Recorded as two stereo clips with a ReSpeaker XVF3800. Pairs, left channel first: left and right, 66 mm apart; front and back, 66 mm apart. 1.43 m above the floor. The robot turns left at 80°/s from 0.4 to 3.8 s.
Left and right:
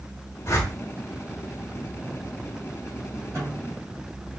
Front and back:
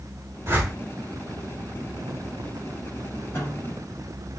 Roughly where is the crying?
No crying in this recording.